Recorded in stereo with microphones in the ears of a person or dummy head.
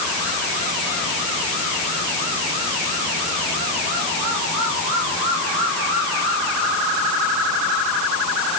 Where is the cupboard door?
No cupboard door in this recording.